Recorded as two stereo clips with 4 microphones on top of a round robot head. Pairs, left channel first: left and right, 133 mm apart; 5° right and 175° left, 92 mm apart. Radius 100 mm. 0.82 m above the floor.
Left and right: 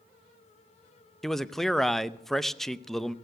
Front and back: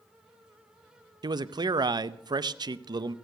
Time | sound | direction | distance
1.2 | a man speaking | 175° left | 0.7 m